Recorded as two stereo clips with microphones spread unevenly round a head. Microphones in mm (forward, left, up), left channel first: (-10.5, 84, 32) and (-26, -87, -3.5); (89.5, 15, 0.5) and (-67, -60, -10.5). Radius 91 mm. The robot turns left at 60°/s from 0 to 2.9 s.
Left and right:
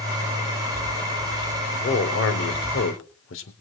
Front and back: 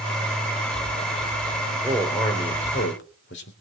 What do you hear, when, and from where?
1.7 s a man speaking: 130° left, 3.5 m; by 3.5 s 60° left, 3.5 m